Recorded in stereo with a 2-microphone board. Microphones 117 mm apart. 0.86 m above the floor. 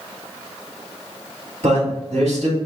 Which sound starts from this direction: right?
A man speaking, at 1.6 s.